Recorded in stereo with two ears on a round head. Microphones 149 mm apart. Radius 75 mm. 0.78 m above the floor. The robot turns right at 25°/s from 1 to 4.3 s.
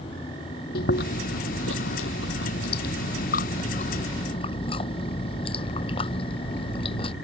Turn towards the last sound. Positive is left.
turn(degrees=145)